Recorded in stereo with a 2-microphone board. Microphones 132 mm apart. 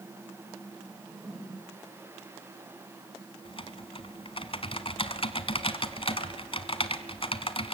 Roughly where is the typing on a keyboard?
Left.